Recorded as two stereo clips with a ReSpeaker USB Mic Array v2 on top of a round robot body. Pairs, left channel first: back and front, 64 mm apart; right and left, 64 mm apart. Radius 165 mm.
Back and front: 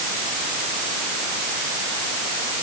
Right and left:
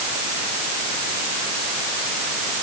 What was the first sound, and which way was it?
Only background noise.